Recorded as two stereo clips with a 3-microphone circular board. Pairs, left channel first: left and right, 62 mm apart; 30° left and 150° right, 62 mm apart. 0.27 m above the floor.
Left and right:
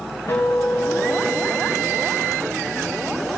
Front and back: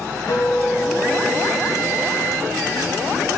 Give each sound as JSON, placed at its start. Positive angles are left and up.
{"t": 0.3, "sound": "a guitar", "azimuth_deg": 60, "distance_m": 3.5}